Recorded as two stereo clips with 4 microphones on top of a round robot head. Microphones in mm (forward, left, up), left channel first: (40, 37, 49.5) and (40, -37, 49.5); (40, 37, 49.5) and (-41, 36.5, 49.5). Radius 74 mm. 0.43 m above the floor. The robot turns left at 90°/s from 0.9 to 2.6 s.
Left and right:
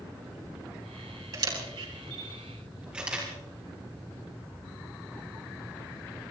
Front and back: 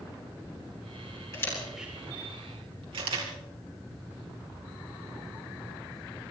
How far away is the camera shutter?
About 4 m.